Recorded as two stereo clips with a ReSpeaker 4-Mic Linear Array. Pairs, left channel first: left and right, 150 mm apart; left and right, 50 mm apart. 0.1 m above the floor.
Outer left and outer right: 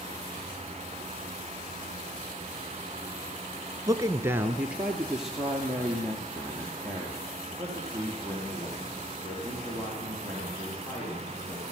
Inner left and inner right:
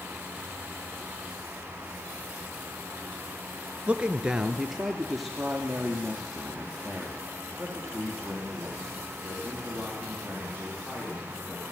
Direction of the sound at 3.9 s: 20° right (ahead or behind).